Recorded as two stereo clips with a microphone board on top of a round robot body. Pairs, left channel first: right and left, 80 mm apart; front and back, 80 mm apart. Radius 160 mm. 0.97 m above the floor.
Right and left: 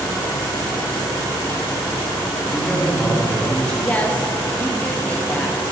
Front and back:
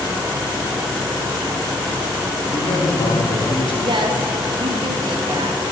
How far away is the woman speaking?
About 1.6 m.